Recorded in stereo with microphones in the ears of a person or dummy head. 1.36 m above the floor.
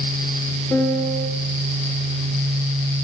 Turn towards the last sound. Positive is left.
turn(degrees=20)  # may be behind; listen again after turning